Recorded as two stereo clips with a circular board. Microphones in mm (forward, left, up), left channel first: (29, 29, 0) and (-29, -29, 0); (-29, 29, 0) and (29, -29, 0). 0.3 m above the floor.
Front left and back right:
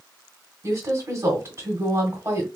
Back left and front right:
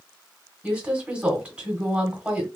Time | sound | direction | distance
0.6 | a woman speaking | 115° right | 1.1 m